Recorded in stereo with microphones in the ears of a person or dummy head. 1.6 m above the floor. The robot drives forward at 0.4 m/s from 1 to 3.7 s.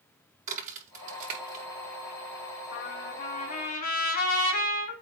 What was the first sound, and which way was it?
A crack, 50° right (ahead or behind).